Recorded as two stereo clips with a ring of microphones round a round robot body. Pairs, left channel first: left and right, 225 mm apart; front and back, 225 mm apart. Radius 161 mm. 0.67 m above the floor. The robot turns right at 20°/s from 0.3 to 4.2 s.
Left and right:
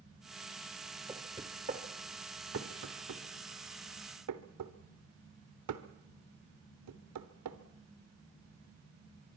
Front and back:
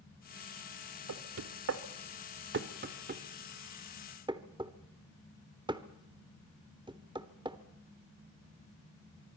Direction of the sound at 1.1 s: 170° right.